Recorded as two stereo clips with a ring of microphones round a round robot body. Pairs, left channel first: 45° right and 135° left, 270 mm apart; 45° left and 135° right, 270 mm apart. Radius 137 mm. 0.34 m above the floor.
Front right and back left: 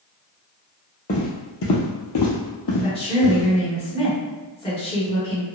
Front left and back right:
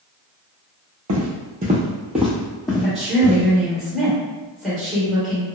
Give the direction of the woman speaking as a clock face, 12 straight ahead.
2 o'clock.